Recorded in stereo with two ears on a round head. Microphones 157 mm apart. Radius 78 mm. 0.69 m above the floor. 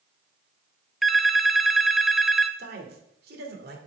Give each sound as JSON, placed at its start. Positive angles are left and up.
{"t": 1.0, "sound": "a phone ringing", "side_deg": 0, "distance_m": 0.6}
{"t": 2.6, "sound": "a man speaking", "side_deg": -60, "distance_m": 2.0}